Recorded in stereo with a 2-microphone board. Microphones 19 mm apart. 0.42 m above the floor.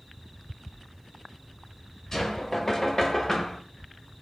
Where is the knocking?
30° left (ahead or behind), 1.7 m.